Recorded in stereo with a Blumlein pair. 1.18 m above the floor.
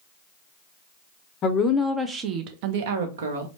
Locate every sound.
1.4 s a woman speaking: 30° left, 0.6 m; by 3.5 s 65° right, 1.2 m